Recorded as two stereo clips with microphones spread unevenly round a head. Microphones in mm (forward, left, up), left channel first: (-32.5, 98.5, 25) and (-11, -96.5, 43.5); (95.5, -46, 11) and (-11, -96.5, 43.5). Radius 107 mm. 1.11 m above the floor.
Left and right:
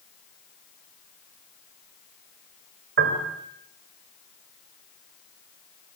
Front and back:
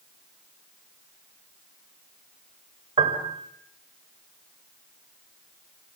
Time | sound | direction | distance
3.0 | a piano | 120° right | 3.5 m